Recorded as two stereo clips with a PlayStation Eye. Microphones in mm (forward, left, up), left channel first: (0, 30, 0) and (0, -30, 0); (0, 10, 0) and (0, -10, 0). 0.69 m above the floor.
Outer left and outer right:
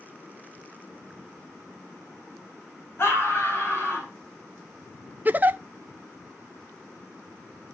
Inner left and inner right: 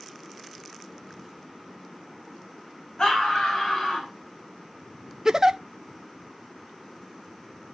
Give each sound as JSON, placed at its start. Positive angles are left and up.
{"t": 3.0, "sound": "a scream", "side_deg": 45, "distance_m": 5.0}
{"t": 5.2, "sound": "a giggle", "side_deg": -30, "distance_m": 0.6}